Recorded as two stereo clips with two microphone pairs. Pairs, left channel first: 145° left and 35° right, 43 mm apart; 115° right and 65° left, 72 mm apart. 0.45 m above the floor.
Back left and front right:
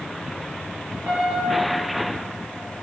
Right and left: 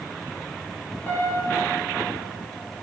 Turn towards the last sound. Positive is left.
turn(degrees=-60)